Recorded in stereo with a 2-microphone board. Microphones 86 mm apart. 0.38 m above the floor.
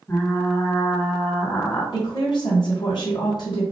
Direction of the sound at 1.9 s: 60° left (ahead or behind).